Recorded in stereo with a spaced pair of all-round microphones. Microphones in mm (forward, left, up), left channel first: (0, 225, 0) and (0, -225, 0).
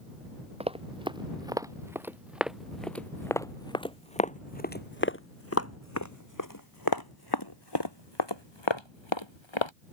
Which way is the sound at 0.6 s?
15° right (ahead or behind).